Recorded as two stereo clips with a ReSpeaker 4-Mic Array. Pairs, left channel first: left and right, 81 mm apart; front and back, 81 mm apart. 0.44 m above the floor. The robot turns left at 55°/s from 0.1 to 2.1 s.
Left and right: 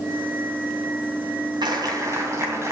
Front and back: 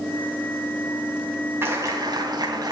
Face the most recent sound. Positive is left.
turn(degrees=-145)